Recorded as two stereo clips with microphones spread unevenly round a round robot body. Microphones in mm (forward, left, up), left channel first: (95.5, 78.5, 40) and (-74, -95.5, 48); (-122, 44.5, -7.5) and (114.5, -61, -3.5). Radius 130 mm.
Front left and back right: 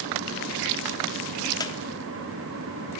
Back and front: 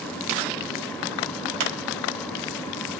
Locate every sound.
1.6 s a squeak: 30° right, 0.9 m